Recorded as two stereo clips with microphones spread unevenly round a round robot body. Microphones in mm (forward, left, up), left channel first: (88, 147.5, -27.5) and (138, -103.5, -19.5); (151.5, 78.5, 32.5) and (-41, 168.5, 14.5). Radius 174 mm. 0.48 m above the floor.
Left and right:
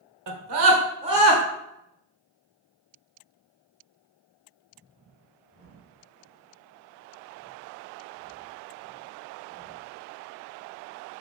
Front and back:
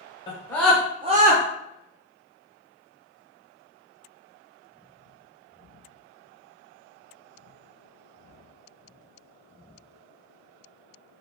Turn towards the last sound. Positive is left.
turn(degrees=180)